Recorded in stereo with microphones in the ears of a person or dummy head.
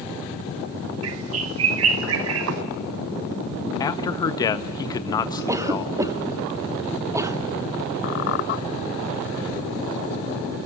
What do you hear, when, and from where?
1.0 s a bird: 65° right (ahead or behind), 0.9 m
3.8 s a man speaking: 20° left (ahead or behind), 1.3 m
5.5 s a cough: 15° right (ahead or behind), 1.2 m
8.0 s a squeak: 55° left (ahead or behind), 1.0 m